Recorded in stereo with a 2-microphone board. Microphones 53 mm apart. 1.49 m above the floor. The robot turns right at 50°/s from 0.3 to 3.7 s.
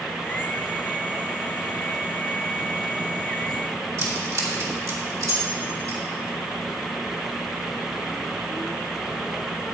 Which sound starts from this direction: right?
Keys jangling, at 4.0 s.